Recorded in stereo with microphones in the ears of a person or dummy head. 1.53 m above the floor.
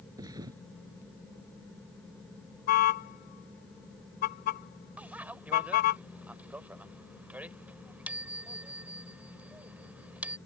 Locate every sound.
0.2 s a thud: 20° right (ahead or behind)
2.7 s a car horn: 55° left (ahead or behind)
5.0 s a bicycle bell: 5° right (ahead or behind)